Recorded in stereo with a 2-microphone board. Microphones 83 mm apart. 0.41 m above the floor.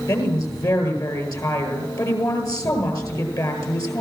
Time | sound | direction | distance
0.1 | a woman speaking | 45° left (ahead or behind) | 9 m